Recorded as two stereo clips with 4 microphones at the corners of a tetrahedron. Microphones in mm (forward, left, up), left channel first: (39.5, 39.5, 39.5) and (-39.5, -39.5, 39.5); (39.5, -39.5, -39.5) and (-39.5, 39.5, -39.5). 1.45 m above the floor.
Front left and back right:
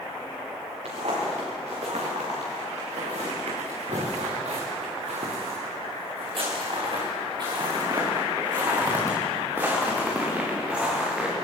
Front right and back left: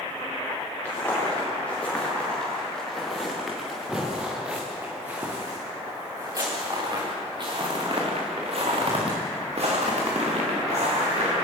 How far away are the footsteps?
About 9.5 m.